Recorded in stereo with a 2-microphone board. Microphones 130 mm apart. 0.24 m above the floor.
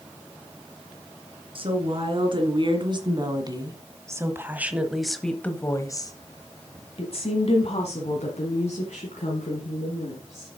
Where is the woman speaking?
45° right (ahead or behind), 2.5 m; by 10.5 s 60° left (ahead or behind), 3 m.